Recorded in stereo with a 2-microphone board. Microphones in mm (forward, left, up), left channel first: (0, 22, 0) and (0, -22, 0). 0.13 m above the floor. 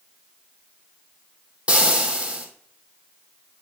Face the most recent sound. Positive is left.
turn(degrees=-25)  # may be behind; listen again after turning